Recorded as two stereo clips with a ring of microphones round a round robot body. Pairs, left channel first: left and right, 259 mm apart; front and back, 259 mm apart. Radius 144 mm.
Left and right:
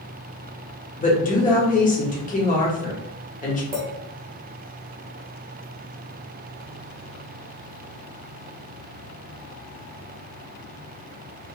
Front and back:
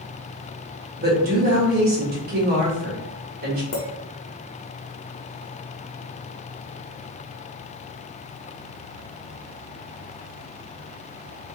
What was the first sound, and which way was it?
A woman speaking, 140° left.